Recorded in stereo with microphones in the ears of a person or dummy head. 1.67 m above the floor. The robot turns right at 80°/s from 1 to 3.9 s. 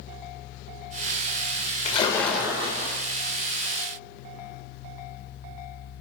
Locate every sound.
1.9 s a splash: 140° left, 0.6 m; by 3.0 s 125° right, 0.6 m